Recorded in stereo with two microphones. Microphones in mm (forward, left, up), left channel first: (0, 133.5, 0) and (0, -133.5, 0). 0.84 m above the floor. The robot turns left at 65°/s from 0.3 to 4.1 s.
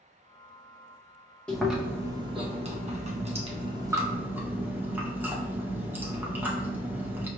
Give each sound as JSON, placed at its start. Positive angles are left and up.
{"t": 1.5, "sound": "chewing", "side_deg": 5, "distance_m": 0.7}